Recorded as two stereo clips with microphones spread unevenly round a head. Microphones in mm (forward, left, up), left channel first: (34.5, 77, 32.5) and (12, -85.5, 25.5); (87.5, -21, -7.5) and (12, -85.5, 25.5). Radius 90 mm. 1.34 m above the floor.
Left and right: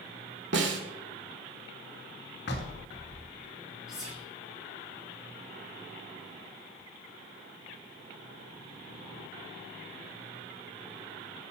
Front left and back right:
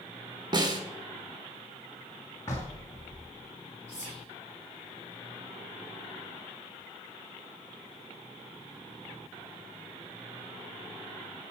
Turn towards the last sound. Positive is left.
turn(degrees=175)